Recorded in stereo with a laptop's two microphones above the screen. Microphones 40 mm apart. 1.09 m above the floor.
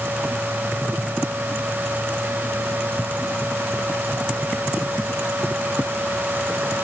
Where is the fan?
60° right (ahead or behind).